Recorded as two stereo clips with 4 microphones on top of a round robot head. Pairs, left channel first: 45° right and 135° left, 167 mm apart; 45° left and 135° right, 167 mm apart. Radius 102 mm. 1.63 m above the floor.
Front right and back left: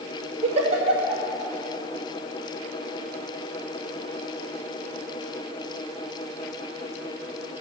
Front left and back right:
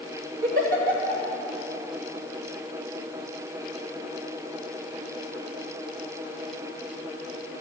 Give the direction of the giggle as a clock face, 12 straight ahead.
6 o'clock.